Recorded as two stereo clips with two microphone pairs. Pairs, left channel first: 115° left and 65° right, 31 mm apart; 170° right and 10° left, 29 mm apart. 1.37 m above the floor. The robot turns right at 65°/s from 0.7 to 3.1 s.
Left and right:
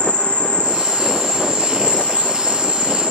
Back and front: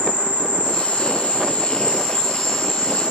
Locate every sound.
0.0 s an insect: 165° left, 2.5 m; by 3.1 s 40° right, 2.5 m